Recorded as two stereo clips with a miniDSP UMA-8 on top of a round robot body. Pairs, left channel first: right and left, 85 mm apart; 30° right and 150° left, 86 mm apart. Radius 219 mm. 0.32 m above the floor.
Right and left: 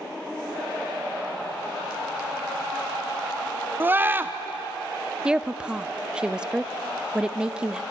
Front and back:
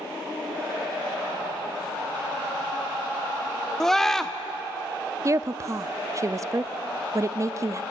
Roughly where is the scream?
Ahead left.